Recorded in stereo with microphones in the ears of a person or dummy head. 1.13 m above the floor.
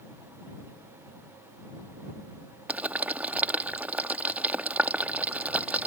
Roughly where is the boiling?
Centre.